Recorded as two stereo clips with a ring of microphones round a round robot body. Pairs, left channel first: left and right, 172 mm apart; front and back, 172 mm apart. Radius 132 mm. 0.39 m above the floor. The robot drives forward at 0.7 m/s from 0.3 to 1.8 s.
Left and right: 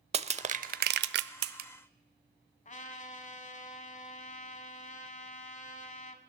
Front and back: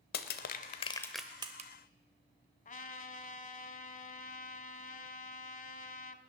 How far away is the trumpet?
About 1.1 m.